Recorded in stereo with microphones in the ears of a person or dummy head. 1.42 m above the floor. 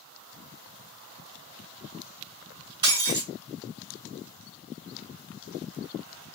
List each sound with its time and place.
2.8 s breaking glass: 25° right (ahead or behind), 3.5 m